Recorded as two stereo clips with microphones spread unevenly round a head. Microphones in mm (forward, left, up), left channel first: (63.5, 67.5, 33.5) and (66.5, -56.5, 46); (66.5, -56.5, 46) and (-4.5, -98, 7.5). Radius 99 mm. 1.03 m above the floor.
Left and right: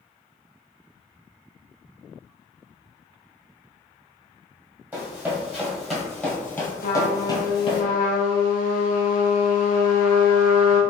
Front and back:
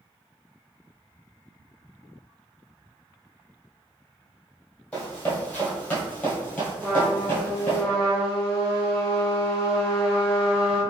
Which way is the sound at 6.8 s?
100° left.